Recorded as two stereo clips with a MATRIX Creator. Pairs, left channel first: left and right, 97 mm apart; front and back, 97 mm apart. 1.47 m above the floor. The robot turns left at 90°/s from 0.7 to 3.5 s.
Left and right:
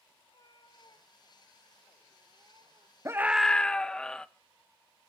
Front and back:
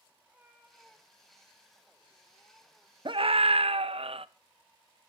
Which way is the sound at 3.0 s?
145° right.